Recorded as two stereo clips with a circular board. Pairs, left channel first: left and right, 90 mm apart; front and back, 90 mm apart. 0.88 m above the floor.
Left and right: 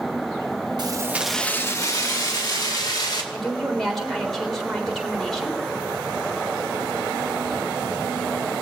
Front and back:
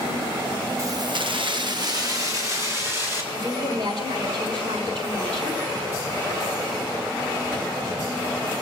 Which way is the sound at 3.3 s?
Straight behind.